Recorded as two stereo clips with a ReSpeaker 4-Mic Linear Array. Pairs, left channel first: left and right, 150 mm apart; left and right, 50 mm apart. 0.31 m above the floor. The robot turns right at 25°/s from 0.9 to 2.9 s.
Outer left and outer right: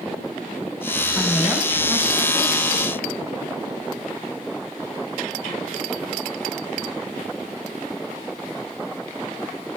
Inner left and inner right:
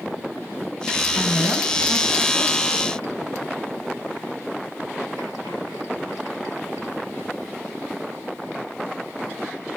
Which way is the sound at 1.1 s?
175° left.